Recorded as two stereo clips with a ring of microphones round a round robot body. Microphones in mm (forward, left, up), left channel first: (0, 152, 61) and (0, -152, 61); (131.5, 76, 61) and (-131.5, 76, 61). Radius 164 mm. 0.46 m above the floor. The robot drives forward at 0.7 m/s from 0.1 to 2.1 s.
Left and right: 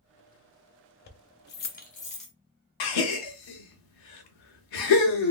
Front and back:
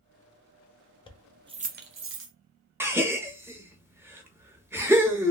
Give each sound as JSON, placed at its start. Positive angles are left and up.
{"t": 1.1, "sound": "keys jangling", "azimuth_deg": 60, "distance_m": 0.5}
{"t": 2.8, "sound": "a gasp", "azimuth_deg": 100, "distance_m": 0.8}